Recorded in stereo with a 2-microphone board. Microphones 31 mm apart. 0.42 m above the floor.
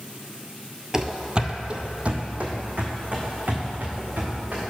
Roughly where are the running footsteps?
Centre.